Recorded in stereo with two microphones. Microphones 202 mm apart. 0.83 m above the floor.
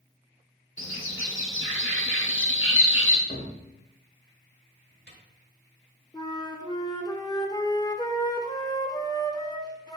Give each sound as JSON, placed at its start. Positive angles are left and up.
{"t": 0.8, "sound": "a bird", "side_deg": 75, "distance_m": 1.4}
{"t": 3.3, "sound": "a cupboard door", "side_deg": 55, "distance_m": 1.5}
{"t": 6.1, "sound": "a flute", "side_deg": 20, "distance_m": 0.8}